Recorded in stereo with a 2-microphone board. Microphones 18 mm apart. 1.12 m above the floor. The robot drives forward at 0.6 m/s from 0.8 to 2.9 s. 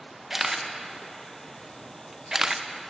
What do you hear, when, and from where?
0.3 s a camera shutter: 15° right (ahead or behind), 0.9 m; by 2.6 s 20° right (ahead or behind), 0.6 m